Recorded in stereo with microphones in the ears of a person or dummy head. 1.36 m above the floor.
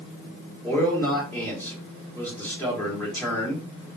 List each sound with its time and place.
0.6 s a man speaking: 15° left (ahead or behind), 1.5 m